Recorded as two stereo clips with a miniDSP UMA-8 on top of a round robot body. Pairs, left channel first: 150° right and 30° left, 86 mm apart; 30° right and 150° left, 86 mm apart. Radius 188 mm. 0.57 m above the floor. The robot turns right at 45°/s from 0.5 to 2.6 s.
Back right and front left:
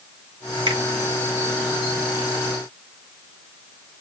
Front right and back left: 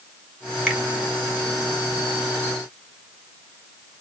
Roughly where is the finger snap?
Ahead left.